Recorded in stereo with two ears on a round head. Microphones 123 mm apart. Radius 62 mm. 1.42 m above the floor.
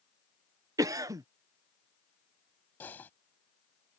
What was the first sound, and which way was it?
A cough, 25° right (ahead or behind).